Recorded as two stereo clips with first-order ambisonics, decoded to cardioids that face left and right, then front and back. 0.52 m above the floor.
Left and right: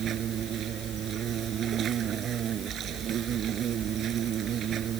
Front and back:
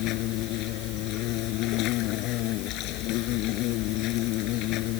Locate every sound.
0.0 s an insect: 35° right